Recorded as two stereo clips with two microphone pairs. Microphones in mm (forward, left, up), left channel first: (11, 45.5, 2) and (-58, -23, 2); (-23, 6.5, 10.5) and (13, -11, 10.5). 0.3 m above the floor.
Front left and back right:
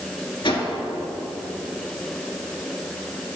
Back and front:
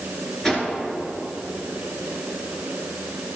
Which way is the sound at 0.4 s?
80° left.